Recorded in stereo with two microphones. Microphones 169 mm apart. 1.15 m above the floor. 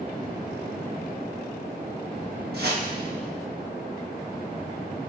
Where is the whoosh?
70° right (ahead or behind), 1.0 m.